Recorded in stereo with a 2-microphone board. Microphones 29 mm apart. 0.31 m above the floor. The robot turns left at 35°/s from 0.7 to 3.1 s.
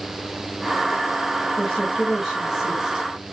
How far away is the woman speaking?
About 1.7 m.